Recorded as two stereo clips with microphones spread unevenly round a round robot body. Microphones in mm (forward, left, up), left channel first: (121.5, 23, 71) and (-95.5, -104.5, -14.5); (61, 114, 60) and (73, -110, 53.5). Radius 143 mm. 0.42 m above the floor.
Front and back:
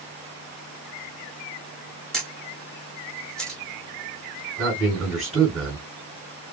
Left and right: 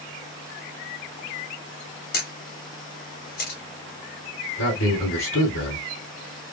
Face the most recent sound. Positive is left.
turn(degrees=125)